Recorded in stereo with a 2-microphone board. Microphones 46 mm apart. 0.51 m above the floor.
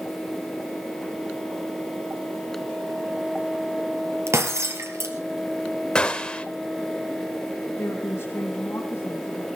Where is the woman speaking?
60° left (ahead or behind), 3.5 m.